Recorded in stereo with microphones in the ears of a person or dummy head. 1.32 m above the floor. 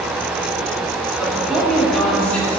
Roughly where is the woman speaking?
Centre.